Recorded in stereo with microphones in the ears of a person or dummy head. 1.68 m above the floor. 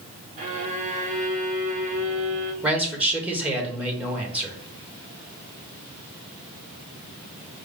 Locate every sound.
0.4 s a violin: 35° right (ahead or behind), 0.9 m
2.6 s a man speaking: 10° right (ahead or behind), 1.3 m